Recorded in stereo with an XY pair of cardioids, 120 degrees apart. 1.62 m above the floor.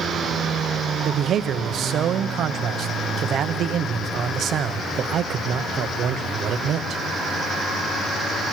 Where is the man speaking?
55° right, 1.0 m.